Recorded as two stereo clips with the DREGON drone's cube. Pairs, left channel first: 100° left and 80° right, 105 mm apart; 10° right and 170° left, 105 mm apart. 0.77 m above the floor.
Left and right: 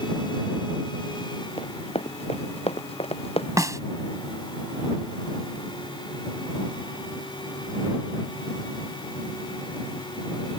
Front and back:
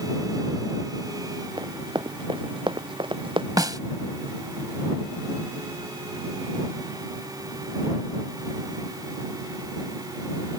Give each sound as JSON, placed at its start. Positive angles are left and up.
{"t": 1.6, "sound": "running footsteps", "azimuth_deg": 120}
{"t": 3.6, "sound": "a snare drum", "azimuth_deg": -140}